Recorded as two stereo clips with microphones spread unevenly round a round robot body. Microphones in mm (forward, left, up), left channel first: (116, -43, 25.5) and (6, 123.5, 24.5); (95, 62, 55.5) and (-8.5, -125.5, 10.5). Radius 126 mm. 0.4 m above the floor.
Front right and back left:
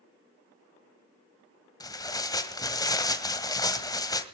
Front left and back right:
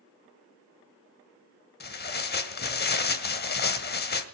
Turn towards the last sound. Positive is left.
turn(degrees=15)